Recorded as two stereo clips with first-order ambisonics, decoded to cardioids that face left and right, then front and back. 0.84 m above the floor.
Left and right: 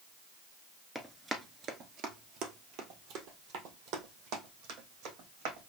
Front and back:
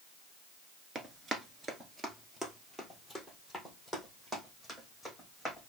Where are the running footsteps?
Straight behind, 0.8 m; by 5.7 s 90° right, 3.5 m.